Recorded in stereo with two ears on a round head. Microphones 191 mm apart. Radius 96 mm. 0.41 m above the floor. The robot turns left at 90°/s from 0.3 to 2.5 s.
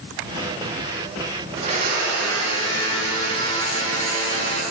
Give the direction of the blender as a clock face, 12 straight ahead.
1 o'clock.